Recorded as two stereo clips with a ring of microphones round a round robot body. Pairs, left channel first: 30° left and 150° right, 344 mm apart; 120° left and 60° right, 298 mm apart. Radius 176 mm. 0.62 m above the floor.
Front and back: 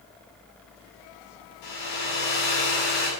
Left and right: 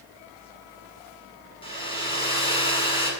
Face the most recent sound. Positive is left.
turn(degrees=45)